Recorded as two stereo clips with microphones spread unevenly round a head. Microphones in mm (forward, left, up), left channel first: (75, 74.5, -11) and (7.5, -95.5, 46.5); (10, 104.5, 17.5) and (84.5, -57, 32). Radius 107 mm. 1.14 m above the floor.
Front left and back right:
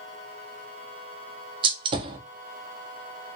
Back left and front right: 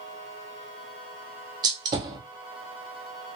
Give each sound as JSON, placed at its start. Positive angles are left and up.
{"t": 1.6, "sound": "a gunshot", "azimuth_deg": -120, "distance_m": 0.5}